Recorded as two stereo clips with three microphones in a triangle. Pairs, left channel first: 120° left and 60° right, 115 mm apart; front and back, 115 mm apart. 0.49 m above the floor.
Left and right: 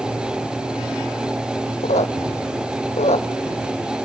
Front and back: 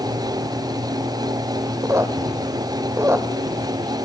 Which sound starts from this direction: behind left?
A squeak, at 1.8 s.